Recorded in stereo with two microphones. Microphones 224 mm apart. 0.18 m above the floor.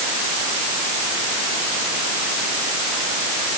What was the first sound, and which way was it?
Only background noise.